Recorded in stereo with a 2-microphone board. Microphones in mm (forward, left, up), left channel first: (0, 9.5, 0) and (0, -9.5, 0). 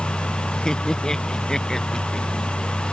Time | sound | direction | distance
0.7 | laughter | 35° left (ahead or behind) | ?